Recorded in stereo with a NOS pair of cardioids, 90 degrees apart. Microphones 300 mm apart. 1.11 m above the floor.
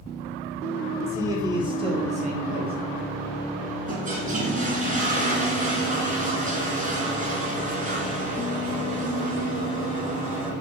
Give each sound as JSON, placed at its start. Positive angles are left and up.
{"t": 1.1, "sound": "a man speaking", "azimuth_deg": -10, "distance_m": 3.0}
{"t": 3.9, "sound": "a toilet flushing", "azimuth_deg": -25, "distance_m": 3.0}